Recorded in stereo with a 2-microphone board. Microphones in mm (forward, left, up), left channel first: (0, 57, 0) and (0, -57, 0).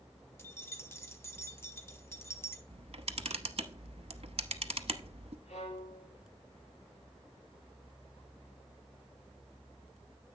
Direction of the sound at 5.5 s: 85° left.